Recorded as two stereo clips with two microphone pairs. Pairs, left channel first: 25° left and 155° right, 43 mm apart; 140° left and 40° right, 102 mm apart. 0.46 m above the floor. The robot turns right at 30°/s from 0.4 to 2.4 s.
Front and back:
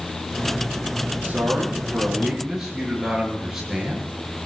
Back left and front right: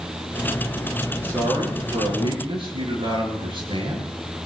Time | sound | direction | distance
1.2 | a man speaking | 105° right | 8.5 m